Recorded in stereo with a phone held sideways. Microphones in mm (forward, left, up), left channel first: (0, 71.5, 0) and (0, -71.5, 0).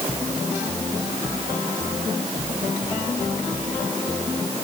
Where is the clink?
I don't hear a clink.